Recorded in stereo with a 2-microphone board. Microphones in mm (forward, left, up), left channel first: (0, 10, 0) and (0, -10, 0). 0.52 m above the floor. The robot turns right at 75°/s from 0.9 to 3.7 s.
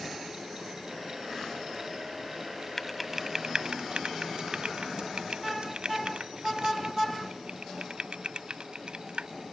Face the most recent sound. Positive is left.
turn(degrees=-50)  # may be behind; listen again after turning